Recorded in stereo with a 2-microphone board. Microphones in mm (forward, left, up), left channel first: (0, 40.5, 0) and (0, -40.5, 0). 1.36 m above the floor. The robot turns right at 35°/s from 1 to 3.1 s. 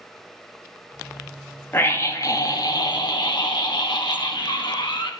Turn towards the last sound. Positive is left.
turn(degrees=70)